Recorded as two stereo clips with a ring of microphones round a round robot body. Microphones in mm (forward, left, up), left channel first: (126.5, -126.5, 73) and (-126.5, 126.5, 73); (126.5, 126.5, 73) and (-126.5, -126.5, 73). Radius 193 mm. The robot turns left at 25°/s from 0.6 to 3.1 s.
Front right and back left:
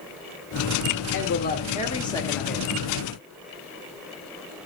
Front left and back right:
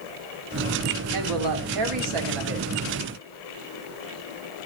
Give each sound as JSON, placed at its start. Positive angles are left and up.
{"t": 1.1, "sound": "a woman speaking", "azimuth_deg": -100, "distance_m": 2.0}